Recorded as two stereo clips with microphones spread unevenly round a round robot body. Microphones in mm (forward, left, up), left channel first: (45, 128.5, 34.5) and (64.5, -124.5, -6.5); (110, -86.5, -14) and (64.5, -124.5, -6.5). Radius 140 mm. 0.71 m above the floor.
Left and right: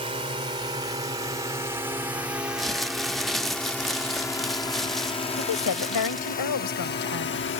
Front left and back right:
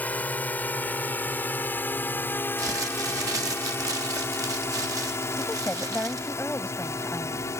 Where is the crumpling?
170° right.